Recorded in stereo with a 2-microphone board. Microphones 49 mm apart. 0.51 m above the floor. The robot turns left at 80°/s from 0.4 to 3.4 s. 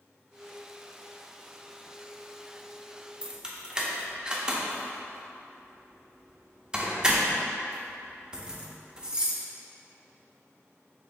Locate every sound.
3.2 s keys jangling: 25° right (ahead or behind), 0.5 m; by 9.4 s 15° right (ahead or behind), 0.5 m